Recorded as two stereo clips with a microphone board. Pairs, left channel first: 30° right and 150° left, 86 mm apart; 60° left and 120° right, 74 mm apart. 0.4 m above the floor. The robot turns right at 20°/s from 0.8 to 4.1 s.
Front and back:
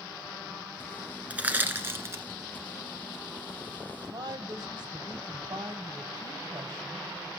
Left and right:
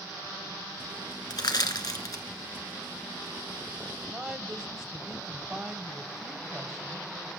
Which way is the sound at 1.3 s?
75° left.